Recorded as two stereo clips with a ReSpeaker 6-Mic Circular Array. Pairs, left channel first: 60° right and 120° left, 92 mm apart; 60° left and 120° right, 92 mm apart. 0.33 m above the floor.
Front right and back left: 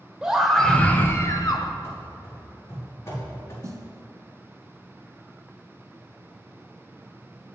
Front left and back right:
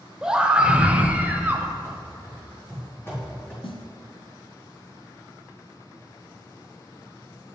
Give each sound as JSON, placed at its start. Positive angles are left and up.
{"t": 0.2, "sound": "a scream", "azimuth_deg": 170, "distance_m": 0.8}
{"t": 1.8, "sound": "running footsteps", "azimuth_deg": -5, "distance_m": 3.5}
{"t": 3.6, "sound": "a snare drum", "azimuth_deg": 65, "distance_m": 0.9}